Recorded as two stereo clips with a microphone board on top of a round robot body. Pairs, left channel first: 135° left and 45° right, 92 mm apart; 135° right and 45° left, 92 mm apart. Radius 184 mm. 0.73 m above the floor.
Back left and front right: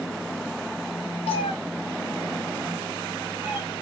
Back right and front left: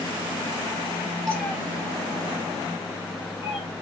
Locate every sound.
1.3 s a cat meowing: 140° left, 0.7 m; by 3.7 s 115° right, 2.5 m